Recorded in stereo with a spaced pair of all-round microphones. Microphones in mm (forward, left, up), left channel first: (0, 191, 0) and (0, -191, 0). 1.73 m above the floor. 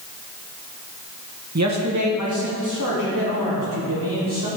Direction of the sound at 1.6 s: 45° right (ahead or behind).